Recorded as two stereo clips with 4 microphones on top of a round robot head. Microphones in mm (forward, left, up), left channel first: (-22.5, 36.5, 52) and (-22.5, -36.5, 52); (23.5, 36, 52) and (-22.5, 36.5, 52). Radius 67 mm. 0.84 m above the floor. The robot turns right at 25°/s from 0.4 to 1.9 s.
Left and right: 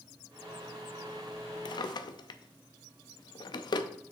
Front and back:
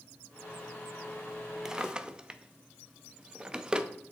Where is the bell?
I don't hear a bell.